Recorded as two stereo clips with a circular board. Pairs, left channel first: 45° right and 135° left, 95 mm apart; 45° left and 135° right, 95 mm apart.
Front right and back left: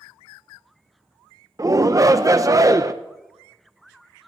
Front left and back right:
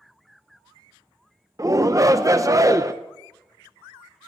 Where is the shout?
Straight behind, 0.5 m.